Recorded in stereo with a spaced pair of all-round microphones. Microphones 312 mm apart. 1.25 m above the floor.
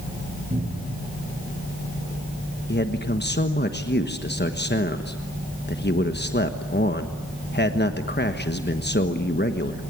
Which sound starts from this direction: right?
A cupboard door, at 0.5 s.